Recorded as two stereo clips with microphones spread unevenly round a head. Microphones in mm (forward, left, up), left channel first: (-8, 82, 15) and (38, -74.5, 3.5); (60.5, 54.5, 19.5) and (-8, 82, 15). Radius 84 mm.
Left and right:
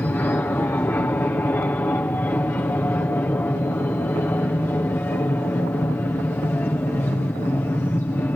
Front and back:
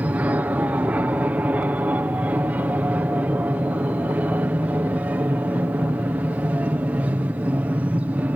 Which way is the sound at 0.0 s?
175° left.